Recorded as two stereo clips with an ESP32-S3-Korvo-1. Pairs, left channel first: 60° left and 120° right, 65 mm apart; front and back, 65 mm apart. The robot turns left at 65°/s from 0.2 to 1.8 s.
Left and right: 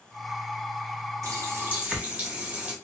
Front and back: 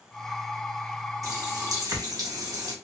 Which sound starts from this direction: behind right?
A running tap, at 1.2 s.